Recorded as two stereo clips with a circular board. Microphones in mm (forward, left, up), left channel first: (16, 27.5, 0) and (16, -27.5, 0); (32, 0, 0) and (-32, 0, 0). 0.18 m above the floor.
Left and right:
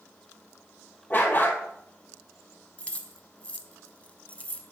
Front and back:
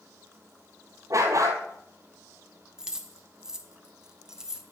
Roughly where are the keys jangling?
Left.